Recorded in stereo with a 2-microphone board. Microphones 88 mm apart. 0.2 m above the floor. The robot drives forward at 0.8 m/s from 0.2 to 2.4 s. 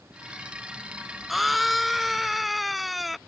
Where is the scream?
Centre (ahead or behind).